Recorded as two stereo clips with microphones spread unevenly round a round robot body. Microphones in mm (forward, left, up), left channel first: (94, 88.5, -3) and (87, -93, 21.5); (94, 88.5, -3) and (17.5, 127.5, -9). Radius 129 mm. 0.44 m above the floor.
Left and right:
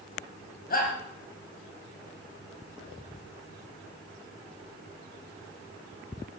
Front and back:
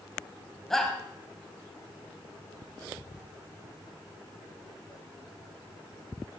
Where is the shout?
60° left, 3.5 m.